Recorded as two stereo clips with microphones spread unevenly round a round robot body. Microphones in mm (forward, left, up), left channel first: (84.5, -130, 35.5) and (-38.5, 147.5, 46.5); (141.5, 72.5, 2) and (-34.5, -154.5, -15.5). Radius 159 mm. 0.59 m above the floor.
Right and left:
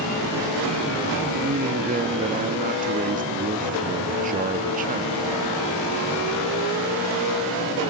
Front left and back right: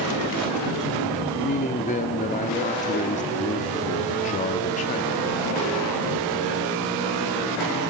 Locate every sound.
1.4 s a man speaking: 90° left, 1.1 m